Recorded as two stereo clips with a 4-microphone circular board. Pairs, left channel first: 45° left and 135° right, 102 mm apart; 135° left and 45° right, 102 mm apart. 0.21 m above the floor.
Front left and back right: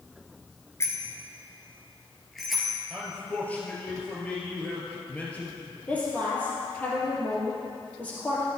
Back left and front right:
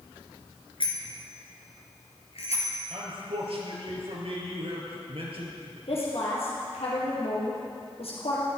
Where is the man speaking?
30° right, 4 m.